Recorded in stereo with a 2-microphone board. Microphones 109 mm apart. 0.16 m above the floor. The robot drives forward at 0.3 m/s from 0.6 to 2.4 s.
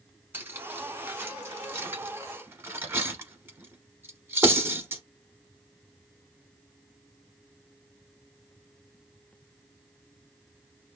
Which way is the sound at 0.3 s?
20° right (ahead or behind).